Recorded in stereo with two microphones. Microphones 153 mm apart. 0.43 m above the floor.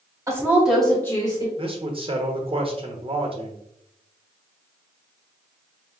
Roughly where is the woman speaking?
Centre.